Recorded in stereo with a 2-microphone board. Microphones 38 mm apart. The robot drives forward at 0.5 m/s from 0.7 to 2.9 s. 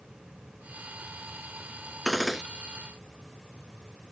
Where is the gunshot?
Centre (ahead or behind).